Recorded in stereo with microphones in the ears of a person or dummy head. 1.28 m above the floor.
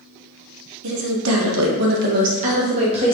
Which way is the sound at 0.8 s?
65° right (ahead or behind).